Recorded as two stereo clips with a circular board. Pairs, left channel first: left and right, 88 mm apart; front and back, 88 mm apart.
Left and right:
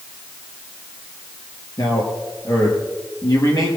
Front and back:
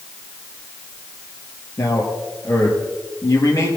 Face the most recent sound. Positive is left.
turn(degrees=50)